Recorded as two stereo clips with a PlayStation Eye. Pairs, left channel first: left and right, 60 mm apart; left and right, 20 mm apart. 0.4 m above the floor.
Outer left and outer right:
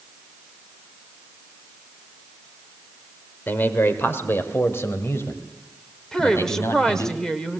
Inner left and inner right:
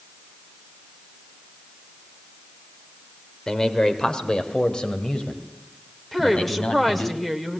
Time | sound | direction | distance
3.5 | a man speaking | 35° left (ahead or behind) | 1.5 m
6.1 | a woman speaking | 10° left (ahead or behind) | 1.6 m